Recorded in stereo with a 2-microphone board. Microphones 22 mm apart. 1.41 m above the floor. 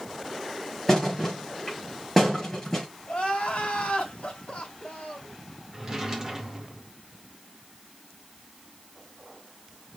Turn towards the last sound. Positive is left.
turn(degrees=-20)  # may be behind; listen again after turning